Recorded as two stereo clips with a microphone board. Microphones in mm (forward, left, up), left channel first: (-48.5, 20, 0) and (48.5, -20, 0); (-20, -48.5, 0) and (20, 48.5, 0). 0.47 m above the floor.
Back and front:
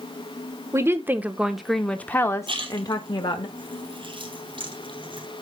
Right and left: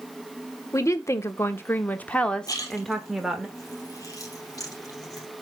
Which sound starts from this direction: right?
A woman speaking, at 0.7 s.